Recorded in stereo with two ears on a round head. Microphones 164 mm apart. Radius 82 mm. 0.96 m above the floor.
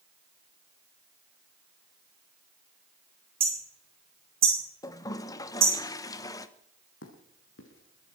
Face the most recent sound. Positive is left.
turn(degrees=75)  # may be behind; listen again after turning